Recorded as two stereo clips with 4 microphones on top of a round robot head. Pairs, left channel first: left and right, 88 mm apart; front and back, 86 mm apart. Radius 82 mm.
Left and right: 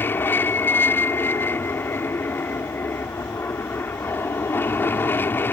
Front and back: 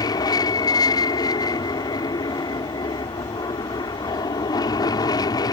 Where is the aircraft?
30° left.